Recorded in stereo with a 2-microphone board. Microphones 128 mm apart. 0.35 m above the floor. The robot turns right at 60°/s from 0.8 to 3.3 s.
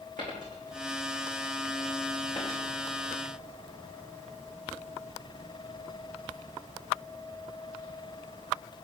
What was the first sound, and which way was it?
A dropped coin, 70° right (ahead or behind).